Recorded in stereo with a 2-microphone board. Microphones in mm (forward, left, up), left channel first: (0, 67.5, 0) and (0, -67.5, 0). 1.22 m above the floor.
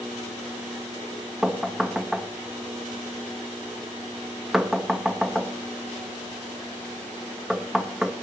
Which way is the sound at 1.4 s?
5° right (ahead or behind).